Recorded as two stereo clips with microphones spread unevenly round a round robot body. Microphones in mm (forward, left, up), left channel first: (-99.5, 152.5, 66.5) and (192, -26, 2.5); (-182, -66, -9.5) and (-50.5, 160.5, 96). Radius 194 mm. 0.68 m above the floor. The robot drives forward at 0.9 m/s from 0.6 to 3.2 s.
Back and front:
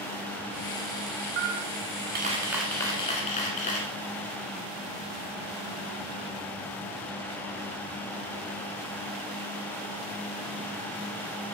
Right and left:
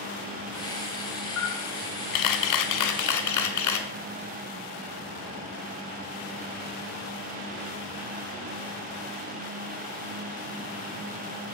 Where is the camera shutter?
60° right, 1.1 m; by 3.9 s 145° right, 1.5 m.